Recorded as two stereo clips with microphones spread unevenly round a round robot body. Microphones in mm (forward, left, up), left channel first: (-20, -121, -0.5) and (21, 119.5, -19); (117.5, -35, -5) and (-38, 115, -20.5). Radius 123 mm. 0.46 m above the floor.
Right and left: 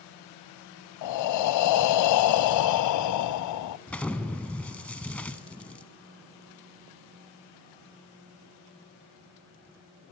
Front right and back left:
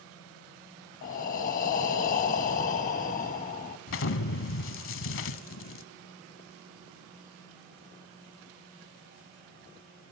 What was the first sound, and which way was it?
Breathing, 100° right.